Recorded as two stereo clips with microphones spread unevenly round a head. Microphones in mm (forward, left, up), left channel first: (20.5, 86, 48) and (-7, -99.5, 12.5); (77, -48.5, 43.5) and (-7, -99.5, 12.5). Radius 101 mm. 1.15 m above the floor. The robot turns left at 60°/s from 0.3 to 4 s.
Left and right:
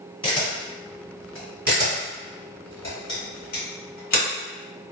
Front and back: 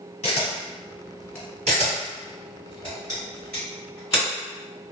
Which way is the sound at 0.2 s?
15° left.